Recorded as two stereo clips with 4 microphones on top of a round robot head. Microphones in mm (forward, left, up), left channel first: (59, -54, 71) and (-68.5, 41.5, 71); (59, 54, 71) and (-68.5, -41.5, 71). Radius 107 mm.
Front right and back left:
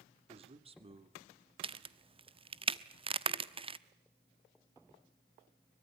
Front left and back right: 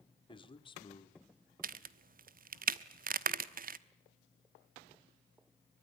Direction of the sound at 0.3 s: 95° left.